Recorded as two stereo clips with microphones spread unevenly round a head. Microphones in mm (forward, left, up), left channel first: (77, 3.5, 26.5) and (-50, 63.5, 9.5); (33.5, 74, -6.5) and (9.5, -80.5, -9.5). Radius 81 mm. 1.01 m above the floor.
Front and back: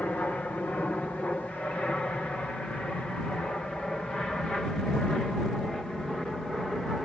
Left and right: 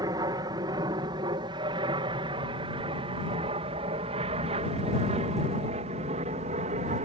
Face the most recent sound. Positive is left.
turn(degrees=-115)